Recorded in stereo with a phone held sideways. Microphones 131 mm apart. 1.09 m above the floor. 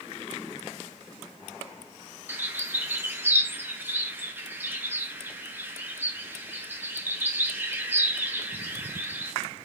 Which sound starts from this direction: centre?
A bird, at 2.3 s.